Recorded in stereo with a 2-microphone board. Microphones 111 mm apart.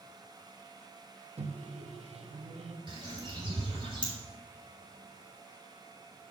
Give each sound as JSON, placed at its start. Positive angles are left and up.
{"t": 1.4, "sound": "a microwave", "side_deg": -70, "distance_m": 0.9}
{"t": 2.9, "sound": "a bird", "side_deg": -45, "distance_m": 3.5}